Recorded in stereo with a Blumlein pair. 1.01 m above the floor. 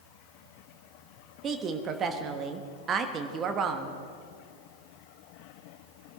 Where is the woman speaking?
25° right, 1.4 m.